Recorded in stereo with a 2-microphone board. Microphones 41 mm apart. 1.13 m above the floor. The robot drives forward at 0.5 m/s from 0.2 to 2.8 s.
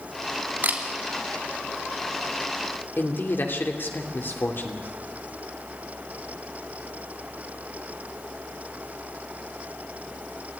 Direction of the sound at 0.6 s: 45° right (ahead or behind).